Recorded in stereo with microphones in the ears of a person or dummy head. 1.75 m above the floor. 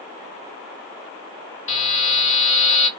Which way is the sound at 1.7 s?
45° left (ahead or behind).